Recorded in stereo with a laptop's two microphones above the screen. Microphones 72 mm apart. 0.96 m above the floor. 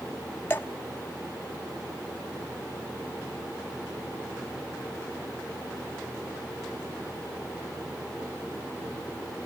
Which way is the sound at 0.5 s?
30° left (ahead or behind).